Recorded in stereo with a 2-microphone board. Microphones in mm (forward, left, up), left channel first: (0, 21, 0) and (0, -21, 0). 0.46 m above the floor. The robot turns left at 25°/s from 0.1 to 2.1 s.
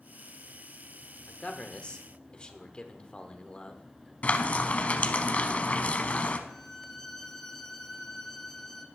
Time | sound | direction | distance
1.3 | a man speaking | 30° left (ahead or behind) | 1.0 m
4.2 | frying | 35° left (ahead or behind) | 0.8 m
6.5 | a violin | 5° left (ahead or behind) | 1.0 m